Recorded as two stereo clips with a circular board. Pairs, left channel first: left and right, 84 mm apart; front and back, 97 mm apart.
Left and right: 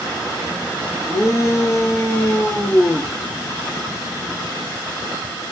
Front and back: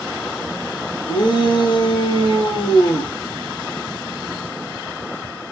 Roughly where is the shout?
Ahead left.